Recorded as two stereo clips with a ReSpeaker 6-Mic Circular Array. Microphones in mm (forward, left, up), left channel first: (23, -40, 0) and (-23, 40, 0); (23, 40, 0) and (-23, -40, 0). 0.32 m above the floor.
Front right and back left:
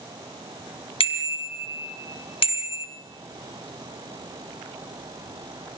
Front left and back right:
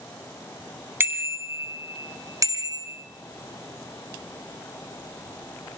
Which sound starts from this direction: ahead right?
A bicycle bell, at 1.0 s.